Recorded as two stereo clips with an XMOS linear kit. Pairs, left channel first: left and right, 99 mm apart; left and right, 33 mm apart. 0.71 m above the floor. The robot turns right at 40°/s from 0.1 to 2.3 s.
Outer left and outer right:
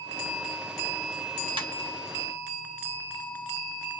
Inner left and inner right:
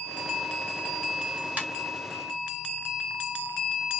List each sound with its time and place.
1.6 s a ringtone: 60° right (ahead or behind), 1.1 m; by 1.7 s 55° right (ahead or behind), 1.1 m